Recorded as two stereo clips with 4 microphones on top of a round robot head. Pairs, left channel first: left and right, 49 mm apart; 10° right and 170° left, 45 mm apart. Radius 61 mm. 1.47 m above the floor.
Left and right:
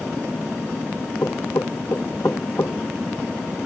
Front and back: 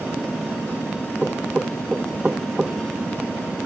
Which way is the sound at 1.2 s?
105° left.